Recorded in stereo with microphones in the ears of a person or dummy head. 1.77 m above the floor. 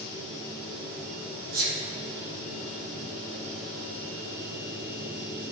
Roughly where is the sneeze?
Right.